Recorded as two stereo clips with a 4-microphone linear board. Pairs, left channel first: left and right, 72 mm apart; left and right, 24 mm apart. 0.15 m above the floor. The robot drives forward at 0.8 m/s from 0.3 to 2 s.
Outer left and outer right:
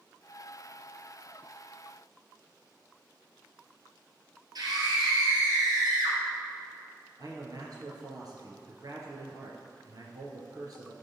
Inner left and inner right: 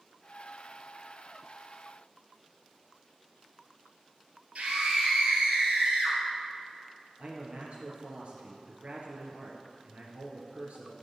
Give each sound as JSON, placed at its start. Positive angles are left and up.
{"t": 4.5, "sound": "a scream", "side_deg": -60, "distance_m": 3.5}
{"t": 7.2, "sound": "a man speaking", "side_deg": -55, "distance_m": 2.5}